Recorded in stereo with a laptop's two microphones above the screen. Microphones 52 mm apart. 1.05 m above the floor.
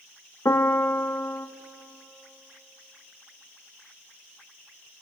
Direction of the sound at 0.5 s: 70° left (ahead or behind).